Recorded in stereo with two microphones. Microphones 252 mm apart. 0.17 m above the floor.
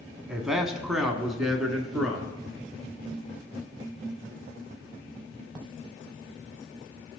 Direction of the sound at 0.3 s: Centre (ahead or behind).